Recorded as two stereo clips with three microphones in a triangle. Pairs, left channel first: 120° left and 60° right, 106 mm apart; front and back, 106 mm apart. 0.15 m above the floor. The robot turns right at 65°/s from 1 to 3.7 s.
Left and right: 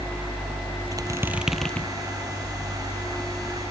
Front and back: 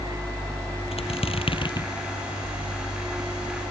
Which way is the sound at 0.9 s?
10° right.